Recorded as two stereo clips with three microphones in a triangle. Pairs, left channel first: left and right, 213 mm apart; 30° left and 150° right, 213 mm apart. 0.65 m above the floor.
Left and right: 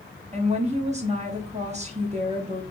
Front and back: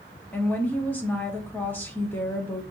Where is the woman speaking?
50° right, 0.8 m.